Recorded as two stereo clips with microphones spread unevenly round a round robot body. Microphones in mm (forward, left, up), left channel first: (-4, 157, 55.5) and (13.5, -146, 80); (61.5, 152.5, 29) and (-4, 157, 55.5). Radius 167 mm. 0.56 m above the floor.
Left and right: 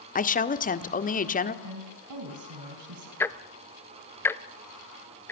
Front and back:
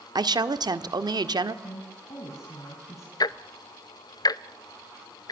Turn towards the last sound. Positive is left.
turn(degrees=10)